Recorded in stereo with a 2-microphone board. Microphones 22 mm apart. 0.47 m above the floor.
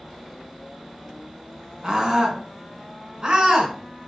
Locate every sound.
1.8 s a scream: 25° right (ahead or behind), 4 m; by 3.7 s 40° right (ahead or behind), 4.5 m